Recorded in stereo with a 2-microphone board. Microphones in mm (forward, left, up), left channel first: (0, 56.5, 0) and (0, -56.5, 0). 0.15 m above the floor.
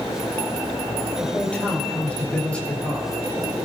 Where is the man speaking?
10° left (ahead or behind), 4.5 m.